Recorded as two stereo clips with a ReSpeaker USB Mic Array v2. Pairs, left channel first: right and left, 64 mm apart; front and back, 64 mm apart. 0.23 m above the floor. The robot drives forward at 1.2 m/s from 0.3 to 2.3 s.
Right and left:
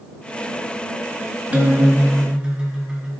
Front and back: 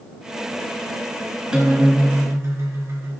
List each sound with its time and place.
1.5 s a guitar: 120° left, 1.1 m; by 3.1 s 160° left, 1.6 m